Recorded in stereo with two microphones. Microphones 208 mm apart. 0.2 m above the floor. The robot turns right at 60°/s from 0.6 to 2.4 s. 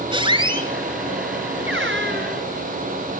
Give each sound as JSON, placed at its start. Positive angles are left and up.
{"t": 0.1, "sound": "a squeak", "side_deg": -25, "distance_m": 2.5}